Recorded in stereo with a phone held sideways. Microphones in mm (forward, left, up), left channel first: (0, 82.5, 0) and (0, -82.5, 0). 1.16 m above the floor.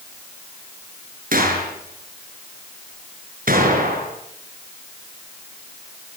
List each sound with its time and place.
1.3 s a gunshot: 65° right (ahead or behind), 7.5 m